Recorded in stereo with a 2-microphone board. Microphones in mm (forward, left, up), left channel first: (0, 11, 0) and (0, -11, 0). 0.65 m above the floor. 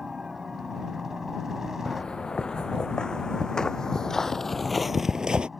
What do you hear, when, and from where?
0.0 s a helicopter: 20° right (ahead or behind); by 5.6 s 5° right (ahead or behind)
1.9 s footsteps: 40° left (ahead or behind); by 5.5 s 45° right (ahead or behind)